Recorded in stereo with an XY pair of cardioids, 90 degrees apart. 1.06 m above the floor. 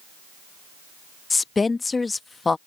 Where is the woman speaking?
30° left.